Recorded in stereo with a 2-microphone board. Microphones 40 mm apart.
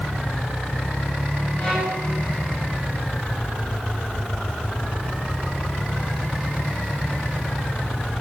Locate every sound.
1.6 s a violin: 20° left (ahead or behind), 8.5 m